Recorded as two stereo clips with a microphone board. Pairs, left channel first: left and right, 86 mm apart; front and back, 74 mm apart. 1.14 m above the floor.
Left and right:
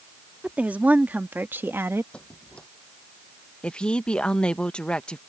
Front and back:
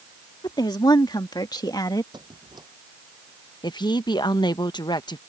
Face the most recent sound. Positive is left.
turn(degrees=10)